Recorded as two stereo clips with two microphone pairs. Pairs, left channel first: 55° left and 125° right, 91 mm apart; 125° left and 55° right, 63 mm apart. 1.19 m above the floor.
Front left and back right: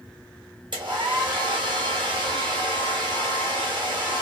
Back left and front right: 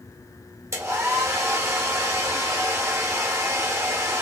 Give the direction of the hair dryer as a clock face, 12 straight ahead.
3 o'clock.